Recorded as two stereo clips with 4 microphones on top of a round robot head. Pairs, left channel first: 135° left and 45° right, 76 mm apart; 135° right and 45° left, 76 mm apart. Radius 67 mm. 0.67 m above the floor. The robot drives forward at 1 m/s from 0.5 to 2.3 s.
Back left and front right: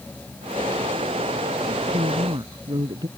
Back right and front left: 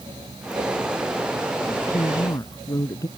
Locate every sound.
1.6 s a woman speaking: 75° right; by 3.1 s 80° right